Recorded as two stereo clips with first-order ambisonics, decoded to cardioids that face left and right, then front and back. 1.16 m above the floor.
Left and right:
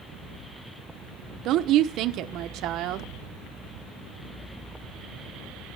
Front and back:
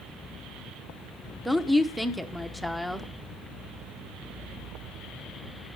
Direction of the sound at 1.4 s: 95° right.